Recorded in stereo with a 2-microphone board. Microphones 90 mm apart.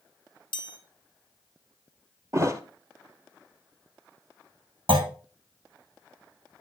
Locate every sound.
0.5 s a chime: 60° left (ahead or behind), 0.9 m
2.3 s a thud: 35° right (ahead or behind), 0.9 m
4.9 s a clunk: 75° right (ahead or behind), 1.7 m